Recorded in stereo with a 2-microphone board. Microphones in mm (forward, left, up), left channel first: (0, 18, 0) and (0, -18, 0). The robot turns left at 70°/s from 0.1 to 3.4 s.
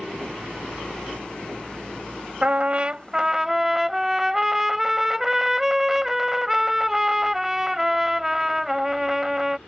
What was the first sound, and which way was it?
A trumpet, 95° right.